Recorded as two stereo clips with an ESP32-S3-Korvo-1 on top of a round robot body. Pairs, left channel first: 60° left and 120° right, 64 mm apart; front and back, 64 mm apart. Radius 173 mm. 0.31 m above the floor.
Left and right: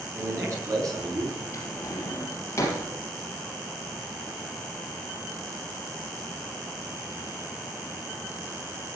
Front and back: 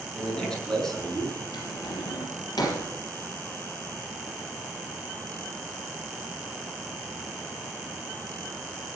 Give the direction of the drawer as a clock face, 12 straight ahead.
12 o'clock.